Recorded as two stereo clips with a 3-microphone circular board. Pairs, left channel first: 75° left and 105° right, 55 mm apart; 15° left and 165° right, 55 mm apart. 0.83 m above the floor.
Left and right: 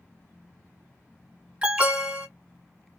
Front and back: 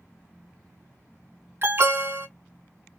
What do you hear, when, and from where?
1.6 s an alarm: 165° right, 1.7 m